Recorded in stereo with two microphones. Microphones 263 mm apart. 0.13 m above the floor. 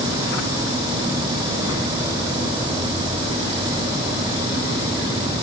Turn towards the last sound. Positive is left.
No sound to turn to.